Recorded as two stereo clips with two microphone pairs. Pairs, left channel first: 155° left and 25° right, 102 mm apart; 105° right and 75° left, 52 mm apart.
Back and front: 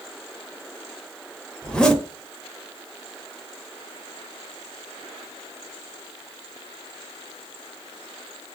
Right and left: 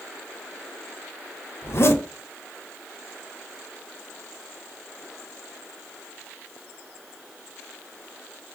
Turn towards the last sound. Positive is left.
turn(degrees=-125)